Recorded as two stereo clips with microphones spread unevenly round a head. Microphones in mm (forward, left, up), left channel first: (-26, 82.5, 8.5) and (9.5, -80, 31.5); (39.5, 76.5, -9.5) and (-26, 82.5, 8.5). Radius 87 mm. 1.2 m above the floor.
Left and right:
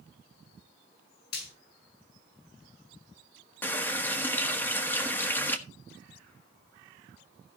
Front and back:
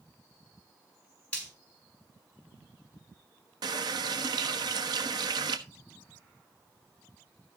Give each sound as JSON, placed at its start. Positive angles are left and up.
{"t": 1.3, "sound": "frying", "azimuth_deg": 70, "distance_m": 6.5}
{"t": 3.6, "sound": "a running tap", "azimuth_deg": 180, "distance_m": 1.2}